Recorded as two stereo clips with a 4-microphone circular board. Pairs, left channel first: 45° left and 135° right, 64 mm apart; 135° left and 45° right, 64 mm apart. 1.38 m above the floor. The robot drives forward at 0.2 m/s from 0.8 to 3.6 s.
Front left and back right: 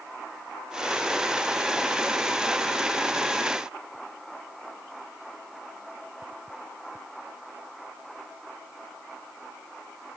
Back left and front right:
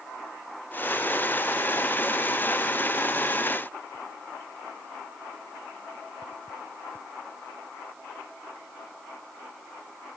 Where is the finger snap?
No finger snap in this recording.